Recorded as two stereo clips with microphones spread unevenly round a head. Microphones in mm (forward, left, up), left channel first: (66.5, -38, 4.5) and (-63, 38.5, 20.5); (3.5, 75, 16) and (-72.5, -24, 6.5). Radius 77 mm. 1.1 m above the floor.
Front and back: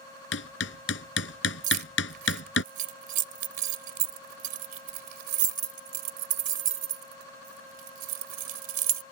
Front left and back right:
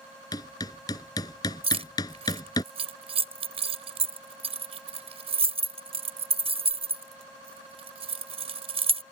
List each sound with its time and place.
0.3 s hammering: 15° right
1.6 s keys jangling: 170° right